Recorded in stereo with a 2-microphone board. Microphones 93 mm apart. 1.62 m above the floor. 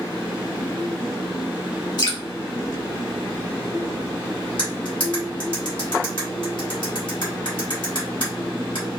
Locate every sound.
2.0 s dripping: 55° left (ahead or behind), 1.2 m
4.6 s cutlery clinking: 60° left (ahead or behind), 1.9 m